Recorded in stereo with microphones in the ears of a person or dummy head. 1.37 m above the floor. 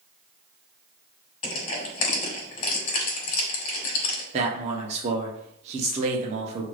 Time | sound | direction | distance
1.4 | crushing | 45° left (ahead or behind) | 1.5 m
4.3 | a man speaking | 30° right (ahead or behind) | 0.7 m